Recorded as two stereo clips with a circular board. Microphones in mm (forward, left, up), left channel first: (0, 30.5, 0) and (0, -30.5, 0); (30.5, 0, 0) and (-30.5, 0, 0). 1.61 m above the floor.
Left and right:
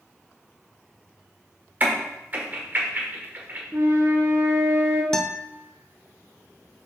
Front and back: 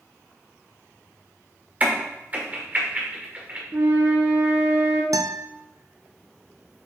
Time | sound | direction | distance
1.8 | a crack | 130° right | 1.7 m
3.7 | a flute | 130° right | 1.2 m
5.1 | a guitar | 170° left | 0.5 m